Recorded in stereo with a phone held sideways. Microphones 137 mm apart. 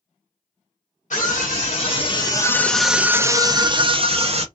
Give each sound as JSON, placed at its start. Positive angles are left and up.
{"t": 1.1, "sound": "a scream", "side_deg": 65, "distance_m": 1.0}